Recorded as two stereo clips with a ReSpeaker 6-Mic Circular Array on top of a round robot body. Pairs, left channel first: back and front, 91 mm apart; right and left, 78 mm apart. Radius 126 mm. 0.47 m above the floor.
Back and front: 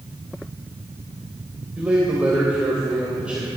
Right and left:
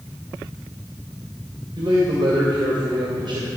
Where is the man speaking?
75° left, 3 m.